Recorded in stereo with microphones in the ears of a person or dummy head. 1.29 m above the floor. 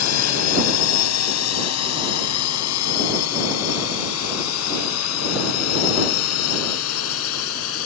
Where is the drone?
80° left.